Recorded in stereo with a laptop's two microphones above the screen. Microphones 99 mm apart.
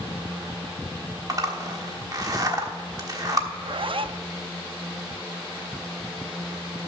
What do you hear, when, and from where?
1.3 s a zipper: 40° right (ahead or behind), 1.2 m
3.5 s a zipper: 60° right (ahead or behind), 0.5 m